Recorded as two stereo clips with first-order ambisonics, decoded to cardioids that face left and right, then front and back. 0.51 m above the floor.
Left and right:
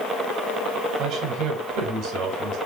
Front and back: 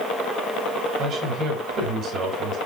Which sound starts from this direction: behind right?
A man speaking, at 1.0 s.